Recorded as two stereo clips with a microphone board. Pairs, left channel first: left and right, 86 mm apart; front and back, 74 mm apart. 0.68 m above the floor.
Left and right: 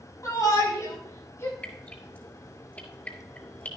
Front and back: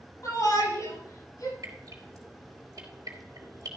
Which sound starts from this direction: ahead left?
A shout, at 0.2 s.